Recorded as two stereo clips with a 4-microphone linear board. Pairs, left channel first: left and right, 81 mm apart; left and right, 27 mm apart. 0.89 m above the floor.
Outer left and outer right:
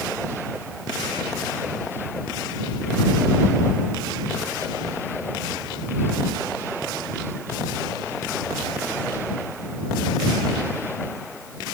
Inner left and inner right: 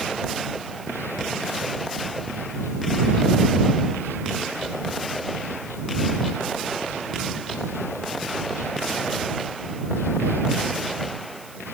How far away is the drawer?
I don't hear a drawer.